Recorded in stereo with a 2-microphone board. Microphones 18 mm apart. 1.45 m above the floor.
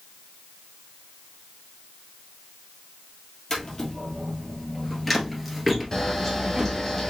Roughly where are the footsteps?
Left.